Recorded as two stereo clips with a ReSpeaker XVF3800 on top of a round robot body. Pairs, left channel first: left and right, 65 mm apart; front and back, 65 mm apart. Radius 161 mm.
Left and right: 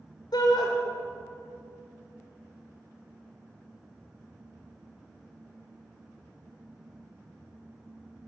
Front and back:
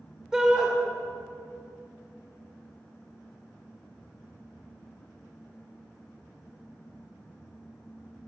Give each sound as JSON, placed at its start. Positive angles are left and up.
{"t": 0.3, "sound": "a shout", "azimuth_deg": 100, "distance_m": 2.0}